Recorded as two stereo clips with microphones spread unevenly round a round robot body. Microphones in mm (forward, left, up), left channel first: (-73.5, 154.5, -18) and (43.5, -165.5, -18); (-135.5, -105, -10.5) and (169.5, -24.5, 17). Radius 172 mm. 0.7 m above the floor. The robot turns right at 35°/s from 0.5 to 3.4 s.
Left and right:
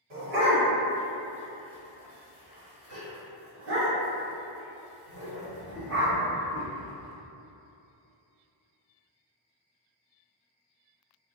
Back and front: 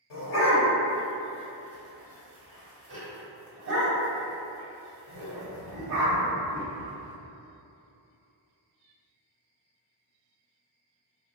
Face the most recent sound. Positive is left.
turn(degrees=-20)